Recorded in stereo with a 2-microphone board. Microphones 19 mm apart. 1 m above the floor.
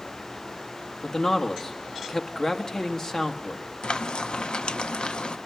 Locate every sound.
1.0 s a man speaking: 45° left (ahead or behind), 1.8 m
3.8 s frying: 75° left (ahead or behind), 0.7 m